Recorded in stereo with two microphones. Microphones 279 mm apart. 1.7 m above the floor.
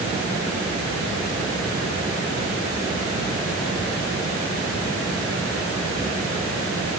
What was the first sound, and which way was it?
Only background noise.